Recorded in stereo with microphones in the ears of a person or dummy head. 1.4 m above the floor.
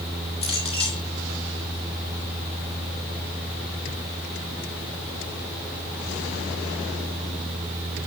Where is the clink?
30° left (ahead or behind), 3 m.